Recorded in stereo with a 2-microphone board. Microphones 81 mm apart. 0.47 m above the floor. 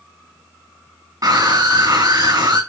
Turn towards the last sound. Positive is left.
turn(degrees=-45)  # may be behind; listen again after turning